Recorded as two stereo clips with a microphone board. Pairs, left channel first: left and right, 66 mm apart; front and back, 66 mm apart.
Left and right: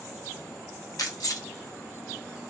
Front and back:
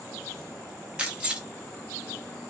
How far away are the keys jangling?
About 0.7 m.